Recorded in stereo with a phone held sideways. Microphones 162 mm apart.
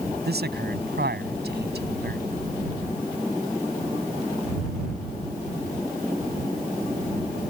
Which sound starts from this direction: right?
A man speaking, at 0.2 s.